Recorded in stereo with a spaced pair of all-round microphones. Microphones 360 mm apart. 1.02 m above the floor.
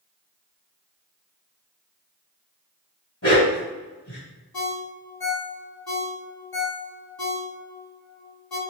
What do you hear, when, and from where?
3.2 s a dog barking: 40° left (ahead or behind), 1.5 m
4.5 s a ringtone: 70° left (ahead or behind), 0.8 m